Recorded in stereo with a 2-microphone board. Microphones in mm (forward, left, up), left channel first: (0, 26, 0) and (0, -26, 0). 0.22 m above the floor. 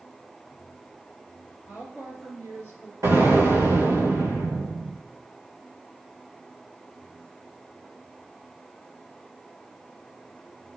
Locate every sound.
1.7 s a woman speaking: 35° right (ahead or behind), 3 m; by 2.9 s 65° right (ahead or behind), 3 m
3.0 s an explosion: 80° right, 3.5 m